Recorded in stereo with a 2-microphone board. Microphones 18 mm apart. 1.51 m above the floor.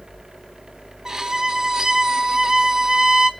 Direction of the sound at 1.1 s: 30° right (ahead or behind).